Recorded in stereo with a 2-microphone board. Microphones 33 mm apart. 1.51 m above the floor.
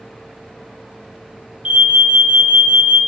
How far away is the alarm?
About 1.7 m.